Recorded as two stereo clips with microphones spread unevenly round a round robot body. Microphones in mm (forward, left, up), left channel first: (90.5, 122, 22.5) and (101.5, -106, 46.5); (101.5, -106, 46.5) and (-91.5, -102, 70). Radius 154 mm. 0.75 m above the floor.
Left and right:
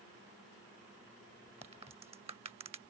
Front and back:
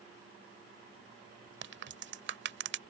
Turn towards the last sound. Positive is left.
turn(degrees=-160)